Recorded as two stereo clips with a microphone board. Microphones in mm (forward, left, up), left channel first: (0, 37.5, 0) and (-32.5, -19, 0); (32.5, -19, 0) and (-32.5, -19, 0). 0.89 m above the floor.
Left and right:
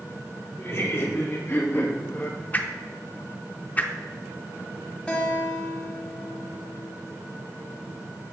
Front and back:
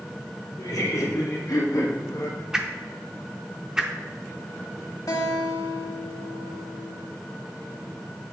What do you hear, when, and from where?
0.6 s laughter: 15° left, 2.0 m; by 2.4 s straight ahead, 1.0 m
2.5 s a whoosh: 110° left, 0.5 m
5.1 s a guitar: 10° right, 1.6 m